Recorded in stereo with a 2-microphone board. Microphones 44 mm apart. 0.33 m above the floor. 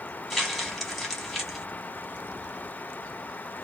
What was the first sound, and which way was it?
Crumpling, 5° left (ahead or behind).